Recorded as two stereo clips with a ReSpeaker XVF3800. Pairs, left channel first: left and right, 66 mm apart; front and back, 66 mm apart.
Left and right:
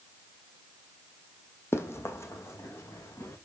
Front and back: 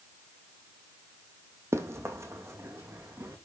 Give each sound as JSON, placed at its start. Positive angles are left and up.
{"t": 1.7, "sound": "running footsteps", "azimuth_deg": 140, "distance_m": 1.4}